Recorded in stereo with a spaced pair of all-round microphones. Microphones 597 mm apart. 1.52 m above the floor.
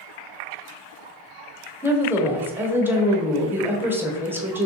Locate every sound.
1.8 s a woman speaking: 5° right (ahead or behind), 0.8 m